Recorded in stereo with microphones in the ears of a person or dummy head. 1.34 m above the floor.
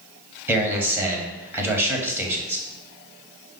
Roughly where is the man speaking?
Centre.